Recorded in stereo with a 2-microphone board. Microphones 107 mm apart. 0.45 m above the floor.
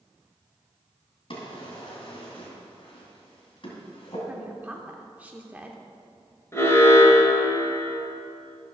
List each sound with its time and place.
1.3 s a drawer: 55° left (ahead or behind), 2.5 m
4.3 s a woman speaking: 15° right (ahead or behind), 0.7 m
6.5 s an alarm: 25° left (ahead or behind), 1.6 m